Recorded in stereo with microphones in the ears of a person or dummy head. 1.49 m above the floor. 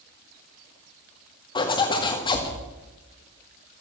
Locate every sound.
1.6 s a zipper: 25° left (ahead or behind), 2 m